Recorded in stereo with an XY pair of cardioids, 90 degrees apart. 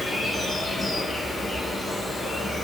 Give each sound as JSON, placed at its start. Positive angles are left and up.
{"t": 0.0, "sound": "an insect", "azimuth_deg": 30, "distance_m": 0.8}